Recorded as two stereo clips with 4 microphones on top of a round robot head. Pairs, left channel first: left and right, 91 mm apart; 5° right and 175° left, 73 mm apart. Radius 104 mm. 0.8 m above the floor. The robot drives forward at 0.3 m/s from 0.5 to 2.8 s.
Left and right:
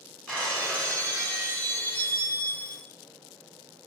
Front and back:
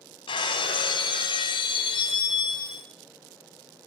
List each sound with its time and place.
0.3 s breaking glass: 10° left, 1.5 m; by 2.9 s 15° left, 0.8 m